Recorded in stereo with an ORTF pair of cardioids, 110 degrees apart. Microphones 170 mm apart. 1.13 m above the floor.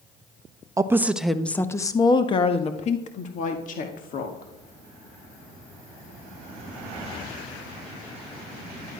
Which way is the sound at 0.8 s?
20° right.